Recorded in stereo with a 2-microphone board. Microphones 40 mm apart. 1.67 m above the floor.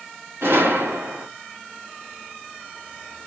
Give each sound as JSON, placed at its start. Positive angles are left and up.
{"t": 0.4, "sound": "a gunshot", "side_deg": -60, "distance_m": 2.0}